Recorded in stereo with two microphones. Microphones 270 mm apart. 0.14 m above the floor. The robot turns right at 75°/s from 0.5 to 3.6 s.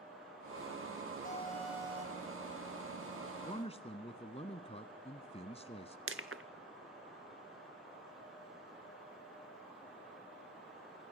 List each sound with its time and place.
1.2 s an alarm: 150° left, 4.5 m; by 2.3 s 135° right, 4.5 m
3.5 s a man speaking: 25° left (ahead or behind), 1.1 m; by 6.0 s 20° left (ahead or behind), 1.1 m
6.1 s crushing: 50° right (ahead or behind), 1.1 m